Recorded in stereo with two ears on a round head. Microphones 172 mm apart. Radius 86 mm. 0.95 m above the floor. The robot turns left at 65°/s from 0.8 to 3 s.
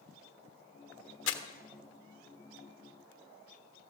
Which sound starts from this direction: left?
Crumpling, at 1.3 s.